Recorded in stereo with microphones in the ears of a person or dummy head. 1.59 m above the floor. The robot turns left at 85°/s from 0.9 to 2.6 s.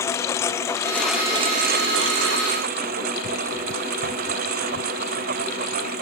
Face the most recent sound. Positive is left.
turn(degrees=-130)